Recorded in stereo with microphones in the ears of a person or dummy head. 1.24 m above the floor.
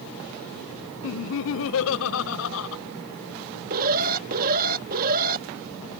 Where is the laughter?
70° left (ahead or behind).